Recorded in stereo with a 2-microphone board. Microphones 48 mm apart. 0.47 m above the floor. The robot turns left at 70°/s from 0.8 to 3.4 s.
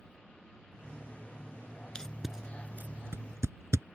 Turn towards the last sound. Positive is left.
turn(degrees=-80)